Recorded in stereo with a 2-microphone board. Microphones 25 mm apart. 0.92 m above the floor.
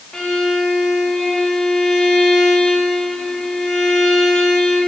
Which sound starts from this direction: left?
A violin, at 0.1 s.